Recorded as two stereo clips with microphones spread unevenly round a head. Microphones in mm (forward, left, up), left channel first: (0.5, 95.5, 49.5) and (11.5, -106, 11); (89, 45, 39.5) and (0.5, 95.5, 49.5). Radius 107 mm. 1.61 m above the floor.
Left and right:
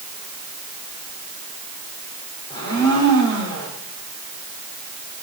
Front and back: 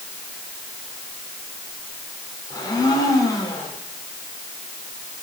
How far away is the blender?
About 6.5 m.